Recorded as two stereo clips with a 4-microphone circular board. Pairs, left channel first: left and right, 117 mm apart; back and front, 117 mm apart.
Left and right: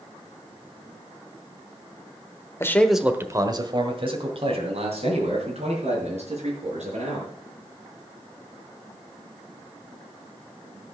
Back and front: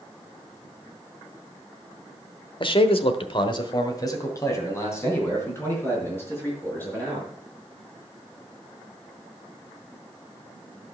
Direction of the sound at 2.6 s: 150° left.